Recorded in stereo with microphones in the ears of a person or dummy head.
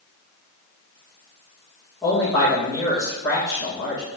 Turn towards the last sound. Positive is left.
turn(degrees=5)  # may be behind; listen again after turning